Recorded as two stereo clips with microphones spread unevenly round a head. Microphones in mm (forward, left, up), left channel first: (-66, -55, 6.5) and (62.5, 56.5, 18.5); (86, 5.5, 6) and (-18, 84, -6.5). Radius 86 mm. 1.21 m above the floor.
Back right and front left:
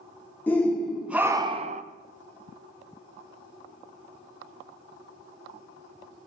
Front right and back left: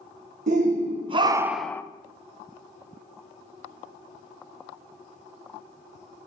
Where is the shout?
145° left, 1.1 m; by 1.8 s 30° left, 0.6 m.